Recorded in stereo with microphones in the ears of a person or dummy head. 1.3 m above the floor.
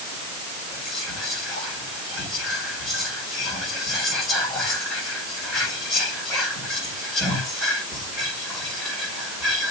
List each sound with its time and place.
0.7 s whispering: centre (ahead or behind), 4.5 m